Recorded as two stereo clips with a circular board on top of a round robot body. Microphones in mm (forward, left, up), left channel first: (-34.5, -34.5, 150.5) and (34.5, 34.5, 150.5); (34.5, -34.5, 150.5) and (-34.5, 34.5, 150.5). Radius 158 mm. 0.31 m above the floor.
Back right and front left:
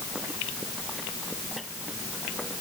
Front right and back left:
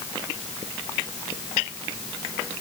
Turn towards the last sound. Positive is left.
No sound to turn to.